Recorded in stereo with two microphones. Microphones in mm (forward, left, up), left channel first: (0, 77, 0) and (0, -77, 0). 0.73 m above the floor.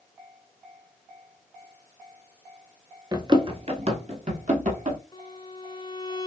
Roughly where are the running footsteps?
Right.